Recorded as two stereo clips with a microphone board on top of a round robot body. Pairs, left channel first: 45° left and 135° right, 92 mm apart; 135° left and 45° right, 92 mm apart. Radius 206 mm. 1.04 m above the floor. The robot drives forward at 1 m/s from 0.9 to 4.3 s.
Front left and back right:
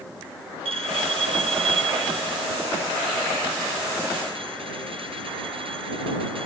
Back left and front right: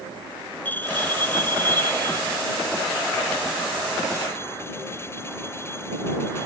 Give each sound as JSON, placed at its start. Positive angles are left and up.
{"t": 0.7, "sound": "a bell", "azimuth_deg": -155}